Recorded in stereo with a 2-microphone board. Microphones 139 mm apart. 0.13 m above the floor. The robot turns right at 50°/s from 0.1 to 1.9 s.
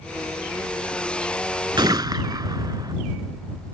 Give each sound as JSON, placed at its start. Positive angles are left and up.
{"t": 1.8, "sound": "a gunshot", "side_deg": -35}